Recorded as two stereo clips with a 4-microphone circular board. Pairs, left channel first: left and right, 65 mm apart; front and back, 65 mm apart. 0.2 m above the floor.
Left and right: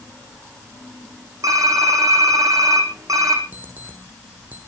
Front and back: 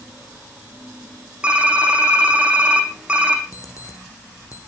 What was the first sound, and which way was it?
Typing on a keyboard, 110° right.